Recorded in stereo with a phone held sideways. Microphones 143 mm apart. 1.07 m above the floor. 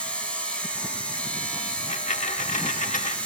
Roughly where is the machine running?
Centre.